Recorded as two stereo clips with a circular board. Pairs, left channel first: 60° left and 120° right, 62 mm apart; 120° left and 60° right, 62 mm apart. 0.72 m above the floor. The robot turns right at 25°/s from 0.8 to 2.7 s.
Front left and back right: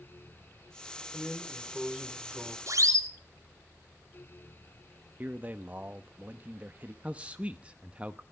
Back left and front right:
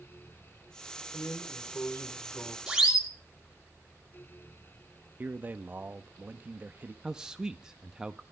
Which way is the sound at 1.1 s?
145° left.